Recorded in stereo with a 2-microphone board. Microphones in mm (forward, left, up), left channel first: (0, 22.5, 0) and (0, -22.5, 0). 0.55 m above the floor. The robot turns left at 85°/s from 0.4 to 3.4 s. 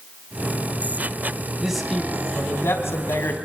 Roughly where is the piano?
I don't hear a piano.